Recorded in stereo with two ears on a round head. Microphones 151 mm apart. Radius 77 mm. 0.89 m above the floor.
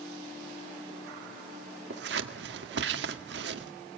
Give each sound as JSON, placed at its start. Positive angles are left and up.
{"t": 1.9, "sound": "scissors", "side_deg": -75, "distance_m": 1.7}